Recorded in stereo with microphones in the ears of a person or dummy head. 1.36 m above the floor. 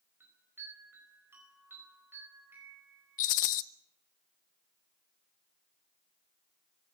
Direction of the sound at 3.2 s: 40° left (ahead or behind).